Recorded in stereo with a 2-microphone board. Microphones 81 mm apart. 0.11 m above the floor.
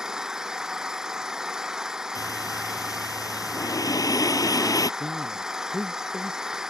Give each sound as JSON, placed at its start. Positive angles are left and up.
{"t": 0.0, "sound": "an engine running", "side_deg": -10}
{"t": 2.1, "sound": "breathing", "side_deg": 50}
{"t": 5.0, "sound": "a man speaking", "side_deg": -10}